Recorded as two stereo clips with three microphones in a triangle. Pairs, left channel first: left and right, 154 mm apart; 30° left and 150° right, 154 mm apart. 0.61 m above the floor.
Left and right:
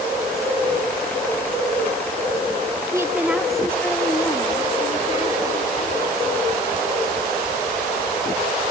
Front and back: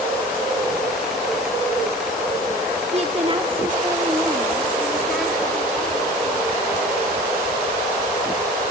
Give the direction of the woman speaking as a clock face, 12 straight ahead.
5 o'clock.